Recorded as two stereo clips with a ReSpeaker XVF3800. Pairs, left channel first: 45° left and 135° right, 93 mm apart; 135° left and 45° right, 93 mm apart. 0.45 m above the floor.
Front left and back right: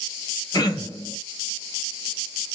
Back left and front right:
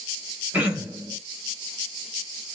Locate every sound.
0.5 s throat clearing: 20° left, 1.7 m